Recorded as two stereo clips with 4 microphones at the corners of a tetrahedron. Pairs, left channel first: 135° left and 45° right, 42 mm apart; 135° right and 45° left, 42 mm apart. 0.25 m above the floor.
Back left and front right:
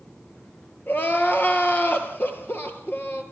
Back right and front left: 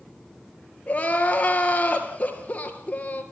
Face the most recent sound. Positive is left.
turn(degrees=170)